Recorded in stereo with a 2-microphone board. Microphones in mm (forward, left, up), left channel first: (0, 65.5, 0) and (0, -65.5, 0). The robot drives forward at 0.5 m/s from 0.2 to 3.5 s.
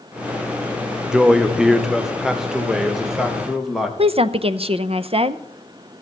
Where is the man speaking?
5° right (ahead or behind), 0.9 m; by 3.9 s centre (ahead or behind), 1.9 m.